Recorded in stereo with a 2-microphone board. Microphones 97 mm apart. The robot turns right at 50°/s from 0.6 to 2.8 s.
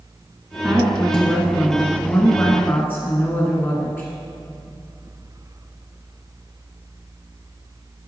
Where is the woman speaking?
5° right (ahead or behind), 1.5 m; by 4.1 s 20° left (ahead or behind), 1.5 m.